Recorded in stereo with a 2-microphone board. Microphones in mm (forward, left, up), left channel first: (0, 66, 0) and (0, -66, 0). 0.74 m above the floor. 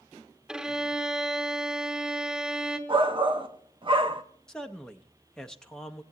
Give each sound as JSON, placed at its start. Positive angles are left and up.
{"t": 0.5, "sound": "a violin", "side_deg": -5, "distance_m": 0.9}
{"t": 2.9, "sound": "a shout", "side_deg": -40, "distance_m": 0.6}
{"t": 4.5, "sound": "a man speaking", "side_deg": 5, "distance_m": 0.5}